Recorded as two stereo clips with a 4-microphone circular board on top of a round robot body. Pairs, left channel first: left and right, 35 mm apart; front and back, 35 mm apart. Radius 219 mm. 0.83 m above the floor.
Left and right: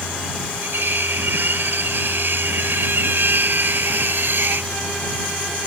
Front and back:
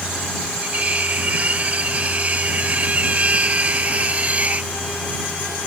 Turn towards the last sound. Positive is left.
turn(degrees=-125)